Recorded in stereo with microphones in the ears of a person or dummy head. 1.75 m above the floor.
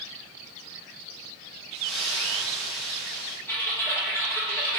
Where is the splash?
Centre (ahead or behind), 1.0 m.